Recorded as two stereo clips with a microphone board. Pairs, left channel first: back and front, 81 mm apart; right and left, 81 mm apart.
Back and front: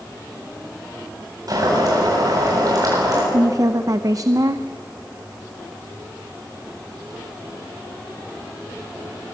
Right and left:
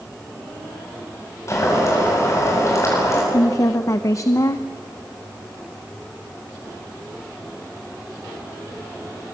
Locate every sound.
1.5 s boiling: 40° right, 8.5 m
3.3 s a woman speaking: 45° right, 0.8 m